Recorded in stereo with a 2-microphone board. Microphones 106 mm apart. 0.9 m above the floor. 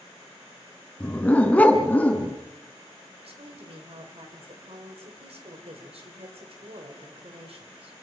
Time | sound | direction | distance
1.0 | a dog barking | 15° left (ahead or behind) | 2.5 m
3.2 | a woman speaking | 65° right (ahead or behind) | 3.5 m